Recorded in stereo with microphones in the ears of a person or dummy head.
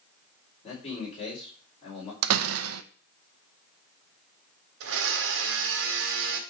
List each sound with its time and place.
0.6 s a man speaking: 35° left (ahead or behind), 4 m
2.2 s a door slam: 75° right (ahead or behind), 0.7 m
4.8 s a blender: 65° right (ahead or behind), 1.6 m